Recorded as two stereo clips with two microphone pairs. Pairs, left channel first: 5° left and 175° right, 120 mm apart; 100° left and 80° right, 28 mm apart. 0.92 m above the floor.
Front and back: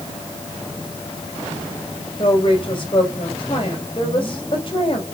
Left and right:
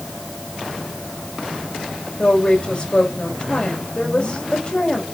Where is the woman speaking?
45° left, 4 m.